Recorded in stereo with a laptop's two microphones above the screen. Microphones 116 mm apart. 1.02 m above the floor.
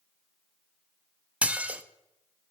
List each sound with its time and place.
1.4 s dishes clattering: 10° right (ahead or behind), 0.6 m